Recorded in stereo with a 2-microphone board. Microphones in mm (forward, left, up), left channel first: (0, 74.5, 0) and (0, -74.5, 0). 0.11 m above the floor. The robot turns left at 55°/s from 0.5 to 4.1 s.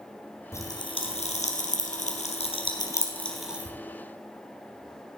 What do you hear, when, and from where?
0.5 s a pop: 20° left (ahead or behind), 1.9 m; by 3.8 s 15° right (ahead or behind), 1.9 m